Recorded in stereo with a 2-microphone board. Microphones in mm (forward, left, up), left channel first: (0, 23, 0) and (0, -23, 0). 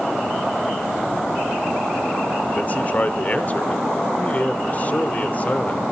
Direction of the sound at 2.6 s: 35° left (ahead or behind).